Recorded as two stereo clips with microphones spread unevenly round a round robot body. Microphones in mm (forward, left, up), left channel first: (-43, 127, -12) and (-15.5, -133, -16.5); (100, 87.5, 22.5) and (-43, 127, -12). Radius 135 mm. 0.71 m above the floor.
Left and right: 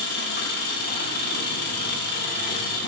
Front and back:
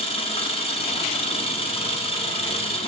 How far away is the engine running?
About 1.2 m.